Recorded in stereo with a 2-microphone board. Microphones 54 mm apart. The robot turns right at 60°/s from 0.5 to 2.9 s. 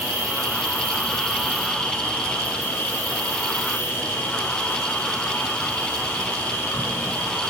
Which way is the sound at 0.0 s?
55° right.